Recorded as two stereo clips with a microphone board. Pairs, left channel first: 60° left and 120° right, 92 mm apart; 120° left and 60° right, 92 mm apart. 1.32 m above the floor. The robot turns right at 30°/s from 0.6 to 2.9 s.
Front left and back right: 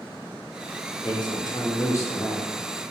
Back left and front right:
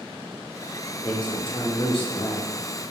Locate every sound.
1.0 s a man speaking: 85° left, 0.6 m; by 2.5 s 125° left, 0.6 m